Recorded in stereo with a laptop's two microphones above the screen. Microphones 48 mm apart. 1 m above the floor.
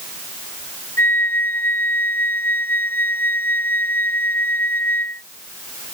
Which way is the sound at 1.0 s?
60° left (ahead or behind).